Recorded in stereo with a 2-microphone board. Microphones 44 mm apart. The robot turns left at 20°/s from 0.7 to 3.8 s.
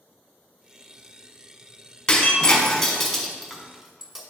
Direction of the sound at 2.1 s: 20° left (ahead or behind).